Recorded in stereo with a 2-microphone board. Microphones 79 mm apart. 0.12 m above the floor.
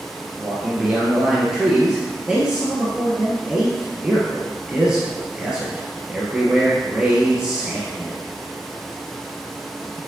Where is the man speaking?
10° right (ahead or behind), 1.9 m.